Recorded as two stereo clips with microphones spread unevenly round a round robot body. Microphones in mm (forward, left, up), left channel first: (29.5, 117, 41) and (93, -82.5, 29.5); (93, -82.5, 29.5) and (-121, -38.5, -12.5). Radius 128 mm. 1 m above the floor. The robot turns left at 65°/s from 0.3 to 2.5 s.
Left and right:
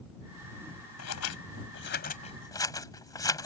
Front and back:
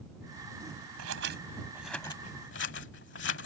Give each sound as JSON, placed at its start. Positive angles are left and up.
{"t": 1.0, "sound": "scissors", "azimuth_deg": 135}